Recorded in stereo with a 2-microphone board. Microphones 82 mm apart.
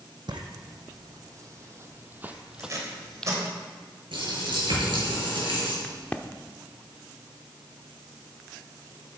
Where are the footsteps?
60° right (ahead or behind), 1.8 m; by 3.3 s 10° left (ahead or behind), 1.2 m.